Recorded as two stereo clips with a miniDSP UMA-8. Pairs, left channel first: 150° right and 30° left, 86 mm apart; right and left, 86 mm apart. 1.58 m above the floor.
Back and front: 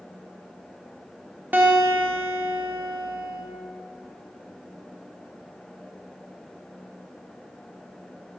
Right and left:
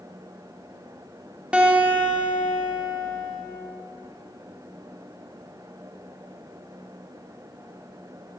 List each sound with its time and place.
1.5 s a guitar: 35° left, 0.9 m